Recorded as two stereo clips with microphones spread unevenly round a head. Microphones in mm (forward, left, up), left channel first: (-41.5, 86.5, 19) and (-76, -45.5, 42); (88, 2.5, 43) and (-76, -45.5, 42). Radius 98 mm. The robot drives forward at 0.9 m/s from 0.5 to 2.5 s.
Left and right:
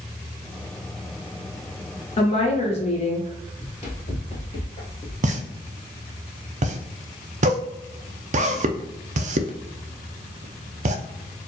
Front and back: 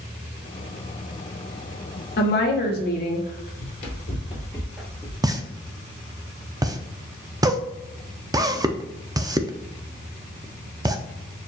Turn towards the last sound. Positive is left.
turn(degrees=-105)